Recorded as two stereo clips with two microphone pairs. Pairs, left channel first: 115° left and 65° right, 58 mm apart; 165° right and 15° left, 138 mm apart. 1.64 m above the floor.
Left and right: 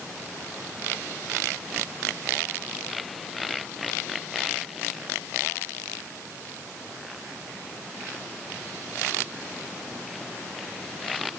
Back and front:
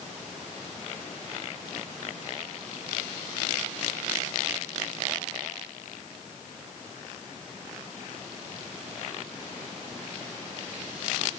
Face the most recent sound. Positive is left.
No sound to turn to.